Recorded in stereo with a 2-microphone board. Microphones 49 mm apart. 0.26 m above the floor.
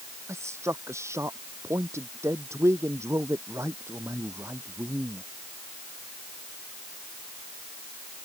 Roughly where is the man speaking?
Right.